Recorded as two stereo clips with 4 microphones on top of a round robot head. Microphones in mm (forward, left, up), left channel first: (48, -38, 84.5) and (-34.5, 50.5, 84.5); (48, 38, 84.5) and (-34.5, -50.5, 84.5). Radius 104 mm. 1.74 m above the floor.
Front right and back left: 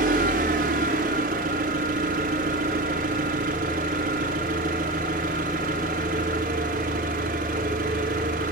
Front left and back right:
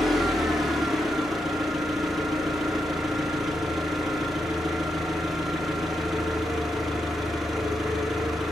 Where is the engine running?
140° left, 1.1 m.